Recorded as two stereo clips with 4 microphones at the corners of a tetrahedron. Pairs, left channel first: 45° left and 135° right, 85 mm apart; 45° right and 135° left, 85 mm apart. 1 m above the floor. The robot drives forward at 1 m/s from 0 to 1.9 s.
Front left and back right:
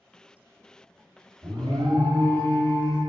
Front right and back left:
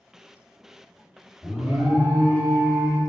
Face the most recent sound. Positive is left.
turn(degrees=-170)